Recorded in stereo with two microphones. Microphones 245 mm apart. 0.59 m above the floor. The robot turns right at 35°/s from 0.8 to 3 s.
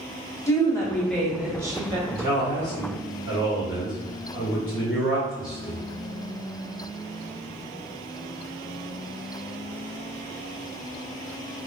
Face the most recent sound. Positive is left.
turn(degrees=70)